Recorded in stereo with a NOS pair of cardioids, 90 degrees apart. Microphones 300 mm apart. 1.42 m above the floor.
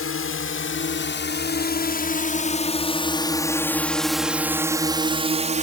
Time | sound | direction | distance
0.0 | a drone | 45° left | ?